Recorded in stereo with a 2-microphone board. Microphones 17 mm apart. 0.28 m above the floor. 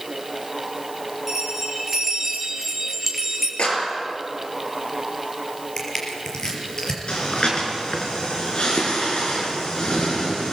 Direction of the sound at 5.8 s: 30° left (ahead or behind).